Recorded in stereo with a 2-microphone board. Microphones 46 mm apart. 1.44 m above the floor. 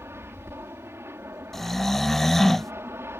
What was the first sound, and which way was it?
An aircraft, 60° right (ahead or behind).